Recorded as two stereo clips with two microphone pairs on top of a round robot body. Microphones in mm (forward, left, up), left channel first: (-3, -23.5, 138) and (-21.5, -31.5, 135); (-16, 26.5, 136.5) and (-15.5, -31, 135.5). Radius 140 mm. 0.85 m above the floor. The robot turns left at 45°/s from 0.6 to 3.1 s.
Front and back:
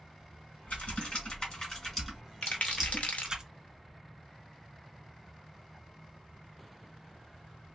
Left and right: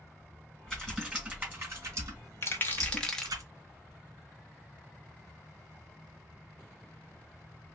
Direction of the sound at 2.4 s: 40° left.